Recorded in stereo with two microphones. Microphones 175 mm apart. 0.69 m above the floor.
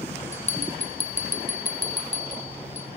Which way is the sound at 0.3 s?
40° left (ahead or behind).